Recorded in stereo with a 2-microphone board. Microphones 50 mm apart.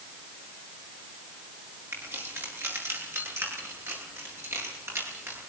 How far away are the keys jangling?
About 9.5 m.